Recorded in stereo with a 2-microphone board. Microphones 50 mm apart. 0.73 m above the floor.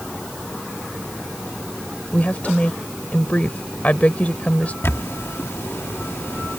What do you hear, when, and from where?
2.1 s a woman speaking: 30° left (ahead or behind)
4.8 s a camera shutter: 60° left (ahead or behind)